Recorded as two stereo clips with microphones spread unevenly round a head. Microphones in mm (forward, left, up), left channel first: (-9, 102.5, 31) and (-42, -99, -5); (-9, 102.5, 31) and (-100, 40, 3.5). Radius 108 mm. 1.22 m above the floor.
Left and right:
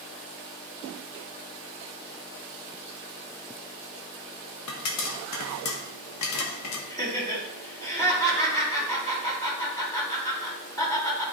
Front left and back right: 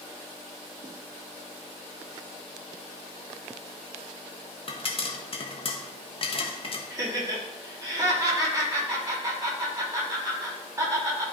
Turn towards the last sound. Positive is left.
turn(degrees=155)